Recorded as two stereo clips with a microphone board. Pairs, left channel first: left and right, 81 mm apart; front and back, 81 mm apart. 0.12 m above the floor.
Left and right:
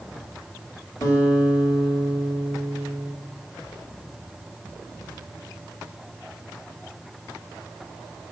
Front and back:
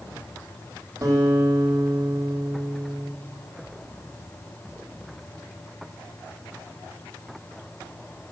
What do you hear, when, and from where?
1.0 s a guitar: 135° left, 4 m